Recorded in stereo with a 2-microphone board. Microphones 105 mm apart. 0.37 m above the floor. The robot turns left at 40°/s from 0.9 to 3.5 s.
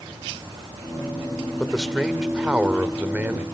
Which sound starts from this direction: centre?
A man speaking, at 1.6 s.